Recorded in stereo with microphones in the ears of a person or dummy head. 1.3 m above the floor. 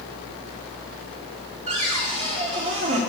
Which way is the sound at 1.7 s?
45° right (ahead or behind).